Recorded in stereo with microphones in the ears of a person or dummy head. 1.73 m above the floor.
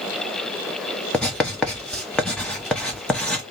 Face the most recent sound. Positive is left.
turn(degrees=5)  # may be behind; listen again after turning